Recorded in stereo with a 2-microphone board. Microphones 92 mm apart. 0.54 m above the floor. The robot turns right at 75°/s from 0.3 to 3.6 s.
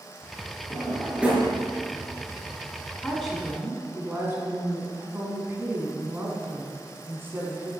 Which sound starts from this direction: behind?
A woman speaking, at 3.0 s.